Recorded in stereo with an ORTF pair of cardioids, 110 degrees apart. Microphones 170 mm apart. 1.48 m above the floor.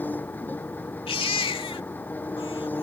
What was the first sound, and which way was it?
An engine running, 10° left.